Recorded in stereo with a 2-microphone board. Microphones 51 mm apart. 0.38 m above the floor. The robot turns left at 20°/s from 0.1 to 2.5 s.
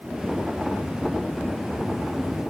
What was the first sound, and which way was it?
Only background noise.